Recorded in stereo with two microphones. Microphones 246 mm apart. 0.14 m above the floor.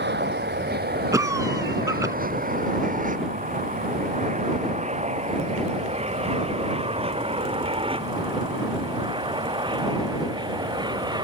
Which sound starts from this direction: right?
An aircraft, at 0.0 s.